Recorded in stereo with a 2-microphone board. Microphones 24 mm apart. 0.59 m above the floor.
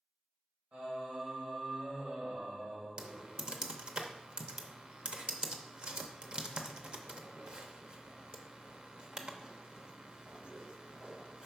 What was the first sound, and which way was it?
Singing, 60° right (ahead or behind).